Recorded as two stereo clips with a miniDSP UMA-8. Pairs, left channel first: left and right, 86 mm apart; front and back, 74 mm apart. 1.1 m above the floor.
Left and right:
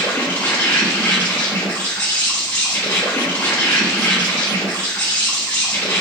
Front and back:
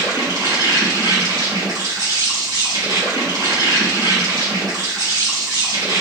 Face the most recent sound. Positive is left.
turn(degrees=155)